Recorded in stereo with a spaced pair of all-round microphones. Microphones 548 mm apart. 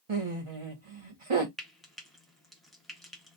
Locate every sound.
0.1 s laughter: 65° right (ahead or behind), 0.9 m
1.6 s frying: centre (ahead or behind), 0.9 m